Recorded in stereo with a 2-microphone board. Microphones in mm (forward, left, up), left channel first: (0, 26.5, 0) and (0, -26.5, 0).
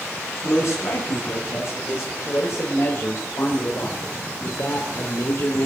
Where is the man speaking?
70° left (ahead or behind), 5 m; by 5.7 s 50° left (ahead or behind), 2.0 m.